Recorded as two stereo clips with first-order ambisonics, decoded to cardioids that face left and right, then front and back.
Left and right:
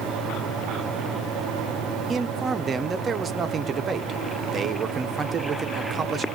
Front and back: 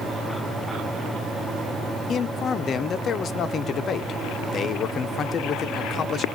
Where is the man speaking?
40° right, 0.5 m.